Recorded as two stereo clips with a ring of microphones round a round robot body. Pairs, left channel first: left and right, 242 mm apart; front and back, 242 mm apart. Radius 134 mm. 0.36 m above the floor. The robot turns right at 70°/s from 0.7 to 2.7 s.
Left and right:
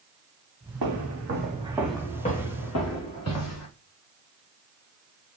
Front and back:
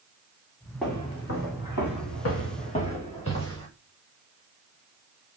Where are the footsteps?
90° right, 2 m; by 3.7 s 70° left, 3.5 m.